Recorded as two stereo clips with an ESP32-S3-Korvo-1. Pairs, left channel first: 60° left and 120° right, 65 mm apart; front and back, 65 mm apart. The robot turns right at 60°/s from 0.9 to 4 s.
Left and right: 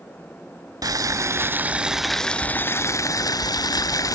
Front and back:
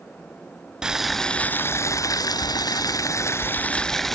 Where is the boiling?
100° right, 0.6 m; by 4.2 s 85° left, 0.6 m.